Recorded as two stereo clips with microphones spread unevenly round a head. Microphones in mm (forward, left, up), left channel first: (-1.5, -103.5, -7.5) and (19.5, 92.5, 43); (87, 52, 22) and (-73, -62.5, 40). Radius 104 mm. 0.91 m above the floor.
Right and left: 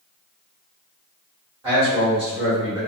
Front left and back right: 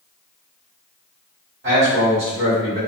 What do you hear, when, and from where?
1.6 s a man speaking: 165° left, 1.5 m